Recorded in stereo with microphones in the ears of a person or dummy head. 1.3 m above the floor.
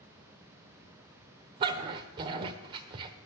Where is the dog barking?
30° right (ahead or behind), 1.1 m.